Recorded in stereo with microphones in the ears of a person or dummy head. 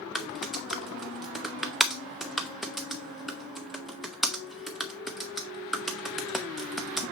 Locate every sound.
0.1 s typing on a keyboard: 5° left (ahead or behind), 0.6 m